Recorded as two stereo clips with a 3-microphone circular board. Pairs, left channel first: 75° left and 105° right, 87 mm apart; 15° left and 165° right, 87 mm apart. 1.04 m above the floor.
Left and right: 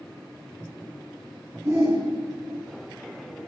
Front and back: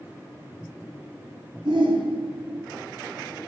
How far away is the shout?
About 2.5 m.